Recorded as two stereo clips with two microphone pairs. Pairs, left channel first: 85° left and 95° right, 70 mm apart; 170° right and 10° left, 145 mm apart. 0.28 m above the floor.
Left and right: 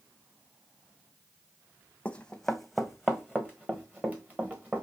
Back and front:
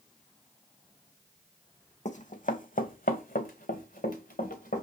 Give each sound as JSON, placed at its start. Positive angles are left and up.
{"t": 2.0, "sound": "running footsteps", "azimuth_deg": 155, "distance_m": 0.9}